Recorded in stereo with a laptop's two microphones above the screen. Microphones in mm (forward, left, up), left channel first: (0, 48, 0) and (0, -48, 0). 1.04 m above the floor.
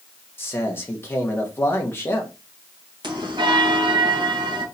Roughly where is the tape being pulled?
No tape being pulled in this recording.